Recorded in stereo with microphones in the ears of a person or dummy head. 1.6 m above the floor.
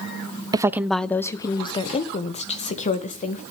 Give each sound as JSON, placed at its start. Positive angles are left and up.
{"t": 0.5, "sound": "a woman speaking", "side_deg": -20, "distance_m": 0.5}